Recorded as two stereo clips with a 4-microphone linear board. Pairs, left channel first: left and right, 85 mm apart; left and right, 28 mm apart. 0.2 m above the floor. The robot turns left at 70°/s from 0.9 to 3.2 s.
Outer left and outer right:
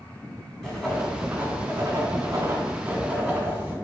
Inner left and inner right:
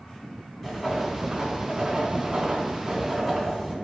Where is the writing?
5° right, 1.0 m; by 3.8 s 165° right, 1.0 m.